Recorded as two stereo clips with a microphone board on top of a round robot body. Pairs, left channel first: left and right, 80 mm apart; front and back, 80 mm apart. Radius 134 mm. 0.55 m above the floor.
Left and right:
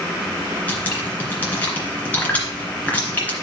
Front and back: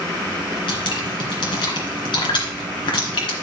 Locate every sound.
0.7 s dripping: 20° left, 2.5 m